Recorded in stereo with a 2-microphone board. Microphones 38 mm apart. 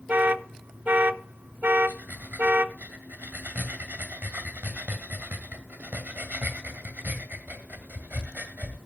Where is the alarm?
50° right (ahead or behind), 0.7 m.